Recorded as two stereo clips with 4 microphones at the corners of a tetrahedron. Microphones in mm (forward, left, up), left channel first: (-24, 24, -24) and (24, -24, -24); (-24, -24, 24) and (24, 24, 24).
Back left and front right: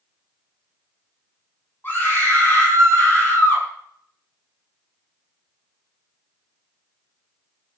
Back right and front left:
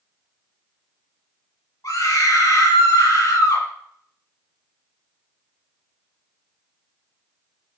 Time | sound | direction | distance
1.8 | a scream | 165° right | 8 m